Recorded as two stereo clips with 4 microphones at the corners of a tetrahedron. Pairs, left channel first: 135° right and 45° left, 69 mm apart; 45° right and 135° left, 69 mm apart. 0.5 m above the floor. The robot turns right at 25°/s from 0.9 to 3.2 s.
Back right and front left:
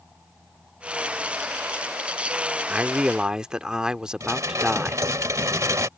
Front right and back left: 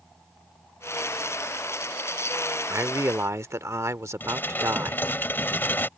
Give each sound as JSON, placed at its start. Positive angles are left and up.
{"t": 2.7, "sound": "a man speaking", "azimuth_deg": 110}
{"t": 4.2, "sound": "dishes clattering", "azimuth_deg": 10}